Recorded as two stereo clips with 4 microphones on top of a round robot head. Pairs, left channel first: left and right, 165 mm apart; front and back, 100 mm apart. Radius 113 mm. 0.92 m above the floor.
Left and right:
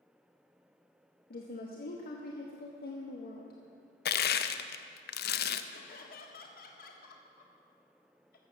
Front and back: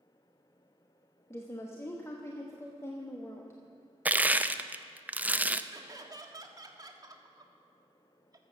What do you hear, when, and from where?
1.3 s a woman speaking: 65° left, 1.2 m
4.0 s crushing: 105° left, 0.6 m
5.7 s laughter: 130° left, 1.6 m